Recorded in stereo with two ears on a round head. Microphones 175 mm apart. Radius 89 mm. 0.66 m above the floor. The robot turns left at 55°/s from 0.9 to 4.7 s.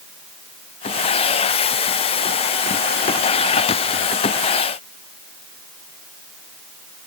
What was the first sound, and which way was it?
Only background noise.